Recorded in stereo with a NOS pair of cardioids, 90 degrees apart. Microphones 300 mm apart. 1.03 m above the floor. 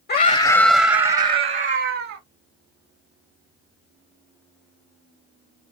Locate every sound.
0.1 s a scream: 35° left, 0.6 m; by 2.2 s 50° right, 1.1 m